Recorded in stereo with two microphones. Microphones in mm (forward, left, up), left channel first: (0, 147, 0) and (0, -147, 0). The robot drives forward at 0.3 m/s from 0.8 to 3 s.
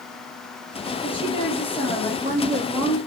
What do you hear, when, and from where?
1.0 s a woman speaking: 20° left (ahead or behind), 2 m; by 3.0 s 15° left (ahead or behind), 2.5 m